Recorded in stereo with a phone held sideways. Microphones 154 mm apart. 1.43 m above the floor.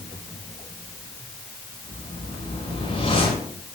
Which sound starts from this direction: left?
A whoosh, at 1.9 s.